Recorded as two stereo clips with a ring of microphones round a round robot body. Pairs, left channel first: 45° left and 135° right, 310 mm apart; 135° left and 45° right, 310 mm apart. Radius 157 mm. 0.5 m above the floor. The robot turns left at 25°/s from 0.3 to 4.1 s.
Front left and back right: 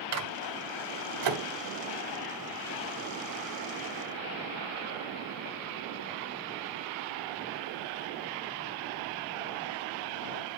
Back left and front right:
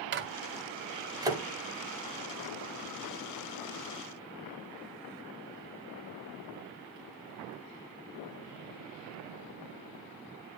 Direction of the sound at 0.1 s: 100° right.